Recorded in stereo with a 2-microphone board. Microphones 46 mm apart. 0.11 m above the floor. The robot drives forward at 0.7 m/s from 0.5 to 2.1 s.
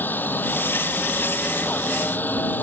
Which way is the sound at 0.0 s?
45° left (ahead or behind).